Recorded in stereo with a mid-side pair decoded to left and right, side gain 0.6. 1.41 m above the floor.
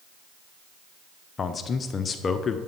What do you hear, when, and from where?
1.4 s a man speaking: 35° left, 0.6 m